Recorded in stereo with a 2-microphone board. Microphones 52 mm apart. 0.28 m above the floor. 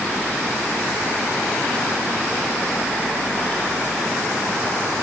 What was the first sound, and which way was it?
Only background noise.